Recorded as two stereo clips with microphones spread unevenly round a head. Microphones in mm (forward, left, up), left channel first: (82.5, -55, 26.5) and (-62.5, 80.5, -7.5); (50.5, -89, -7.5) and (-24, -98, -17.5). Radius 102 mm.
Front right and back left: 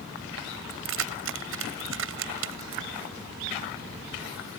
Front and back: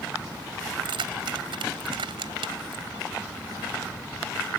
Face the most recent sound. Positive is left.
turn(degrees=165)